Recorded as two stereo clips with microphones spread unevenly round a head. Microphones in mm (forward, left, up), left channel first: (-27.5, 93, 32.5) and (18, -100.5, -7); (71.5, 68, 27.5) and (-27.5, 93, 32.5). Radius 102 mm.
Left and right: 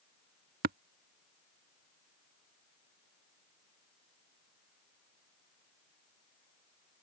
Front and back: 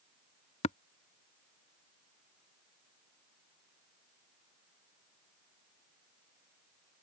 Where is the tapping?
35° right.